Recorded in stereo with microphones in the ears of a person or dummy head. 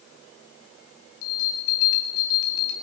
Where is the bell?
50° left (ahead or behind), 1.2 m.